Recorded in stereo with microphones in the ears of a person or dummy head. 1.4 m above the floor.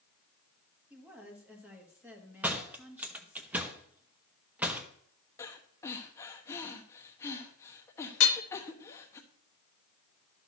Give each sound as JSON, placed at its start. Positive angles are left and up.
{"t": 0.9, "sound": "a woman speaking", "side_deg": -10, "distance_m": 1.9}
{"t": 2.4, "sound": "a door slam", "side_deg": -5, "distance_m": 0.9}
{"t": 5.4, "sound": "breathing", "side_deg": 20, "distance_m": 1.1}
{"t": 8.2, "sound": "hammering", "side_deg": 65, "distance_m": 0.7}